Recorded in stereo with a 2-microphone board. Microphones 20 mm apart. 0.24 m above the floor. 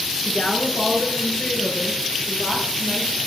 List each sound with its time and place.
0.2 s a woman speaking: 55° left (ahead or behind), 3.5 m; by 3.2 s 80° left, 7 m